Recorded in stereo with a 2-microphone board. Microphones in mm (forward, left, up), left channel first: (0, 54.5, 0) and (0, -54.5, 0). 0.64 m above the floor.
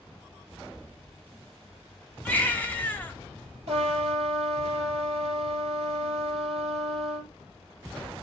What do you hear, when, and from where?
2.2 s a baby crying: 15° left (ahead or behind), 0.8 m
3.7 s a trumpet: 80° right, 3 m